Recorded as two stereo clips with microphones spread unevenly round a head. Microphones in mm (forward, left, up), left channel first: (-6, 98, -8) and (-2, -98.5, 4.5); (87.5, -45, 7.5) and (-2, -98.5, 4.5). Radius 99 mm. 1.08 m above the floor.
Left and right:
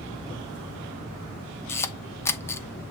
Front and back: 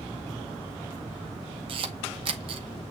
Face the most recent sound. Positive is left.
turn(degrees=165)